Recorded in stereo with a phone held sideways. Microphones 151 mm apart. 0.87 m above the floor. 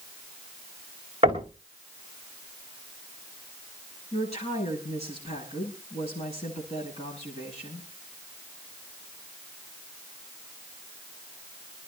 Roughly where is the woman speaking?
Left.